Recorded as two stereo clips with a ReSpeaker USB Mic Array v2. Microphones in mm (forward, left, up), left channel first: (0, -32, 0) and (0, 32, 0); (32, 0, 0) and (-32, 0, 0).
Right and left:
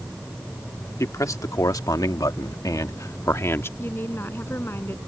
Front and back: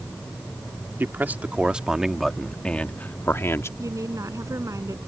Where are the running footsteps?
No running footsteps in this recording.